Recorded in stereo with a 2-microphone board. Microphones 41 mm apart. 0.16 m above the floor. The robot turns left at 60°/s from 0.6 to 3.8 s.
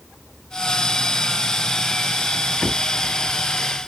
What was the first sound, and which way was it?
Only background noise.